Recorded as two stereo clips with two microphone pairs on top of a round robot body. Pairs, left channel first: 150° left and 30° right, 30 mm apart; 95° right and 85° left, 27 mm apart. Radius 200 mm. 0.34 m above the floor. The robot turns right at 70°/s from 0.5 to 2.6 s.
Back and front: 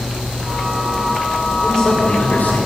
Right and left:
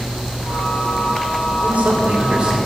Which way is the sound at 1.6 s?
80° left.